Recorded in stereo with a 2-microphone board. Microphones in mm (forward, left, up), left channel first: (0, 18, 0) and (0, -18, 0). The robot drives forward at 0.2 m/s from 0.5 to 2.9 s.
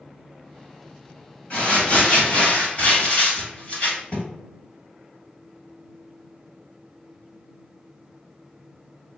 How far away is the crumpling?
About 1.6 m.